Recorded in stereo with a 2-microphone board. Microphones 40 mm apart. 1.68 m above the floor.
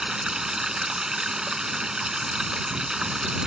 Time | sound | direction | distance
0.0 | running water | 20° right (ahead or behind) | ?